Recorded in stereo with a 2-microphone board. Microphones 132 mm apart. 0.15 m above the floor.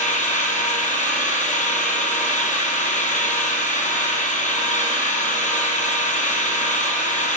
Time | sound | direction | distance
0.0 | an engine running | 75° left (ahead or behind) | 1.4 m